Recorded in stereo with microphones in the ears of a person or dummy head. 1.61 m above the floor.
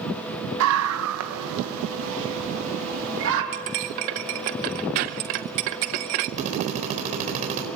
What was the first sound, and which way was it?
A scream, 80° right.